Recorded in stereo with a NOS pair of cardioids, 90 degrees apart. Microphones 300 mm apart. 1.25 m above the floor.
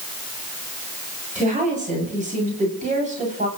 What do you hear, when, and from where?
1.4 s a woman speaking: 25° right, 7 m